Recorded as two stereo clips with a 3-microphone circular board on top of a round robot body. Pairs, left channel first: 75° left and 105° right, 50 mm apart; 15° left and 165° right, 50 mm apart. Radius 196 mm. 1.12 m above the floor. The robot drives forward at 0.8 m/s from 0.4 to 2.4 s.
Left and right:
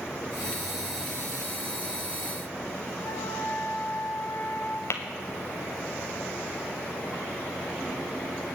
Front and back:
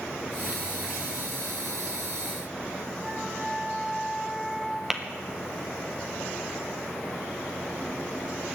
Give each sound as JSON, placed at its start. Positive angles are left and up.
{"t": 3.0, "sound": "a flute", "azimuth_deg": 110, "distance_m": 0.7}
{"t": 4.9, "sound": "tapping", "azimuth_deg": 115, "distance_m": 0.8}